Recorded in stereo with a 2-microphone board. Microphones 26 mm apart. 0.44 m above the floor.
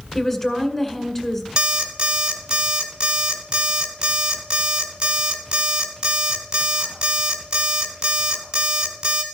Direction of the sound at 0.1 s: 15° left (ahead or behind).